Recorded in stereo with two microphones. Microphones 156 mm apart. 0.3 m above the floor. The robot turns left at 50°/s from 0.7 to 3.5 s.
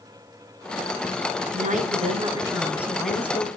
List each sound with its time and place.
1.5 s a woman speaking: 105° right, 3 m; by 3.5 s 155° left, 3 m